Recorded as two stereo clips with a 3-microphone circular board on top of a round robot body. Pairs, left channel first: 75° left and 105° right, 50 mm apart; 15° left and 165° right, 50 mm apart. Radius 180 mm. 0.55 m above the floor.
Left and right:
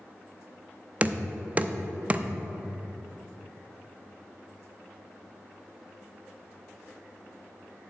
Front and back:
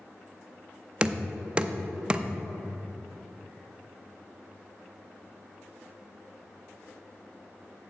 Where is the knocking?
120° right, 0.7 m.